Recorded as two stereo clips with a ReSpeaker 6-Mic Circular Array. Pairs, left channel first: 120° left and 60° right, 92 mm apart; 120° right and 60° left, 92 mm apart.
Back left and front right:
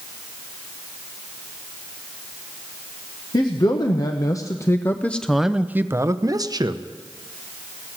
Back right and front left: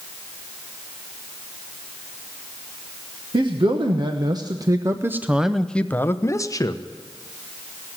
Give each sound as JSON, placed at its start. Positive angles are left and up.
{"t": 3.3, "sound": "a man speaking", "azimuth_deg": 85, "distance_m": 1.2}